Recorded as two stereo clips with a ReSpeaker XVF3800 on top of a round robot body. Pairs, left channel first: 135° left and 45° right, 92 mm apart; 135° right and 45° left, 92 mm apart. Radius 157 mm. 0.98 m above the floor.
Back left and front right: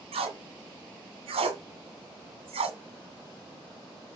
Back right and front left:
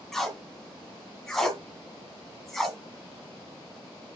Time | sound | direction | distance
0.1 | tape being pulled | 50° right | 1.8 m